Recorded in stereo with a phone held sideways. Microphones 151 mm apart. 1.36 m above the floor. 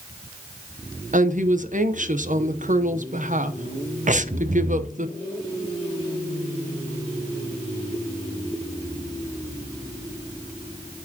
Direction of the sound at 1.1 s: 60° right (ahead or behind).